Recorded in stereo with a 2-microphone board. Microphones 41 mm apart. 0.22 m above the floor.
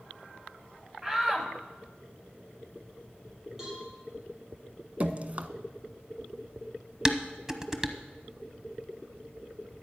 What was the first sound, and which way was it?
A shout, 15° right (ahead or behind).